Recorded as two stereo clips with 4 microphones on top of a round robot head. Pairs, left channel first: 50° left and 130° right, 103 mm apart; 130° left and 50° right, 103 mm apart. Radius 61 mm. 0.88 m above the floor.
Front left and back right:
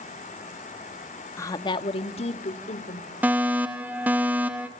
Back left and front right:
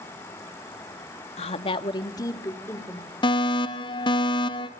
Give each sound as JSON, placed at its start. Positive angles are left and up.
{"t": 1.4, "sound": "a woman speaking", "azimuth_deg": 115, "distance_m": 1.3}
{"t": 3.2, "sound": "a fire alarm", "azimuth_deg": 160, "distance_m": 2.5}